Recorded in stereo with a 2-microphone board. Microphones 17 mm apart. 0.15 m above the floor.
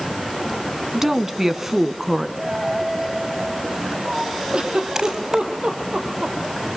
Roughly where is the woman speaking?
Right.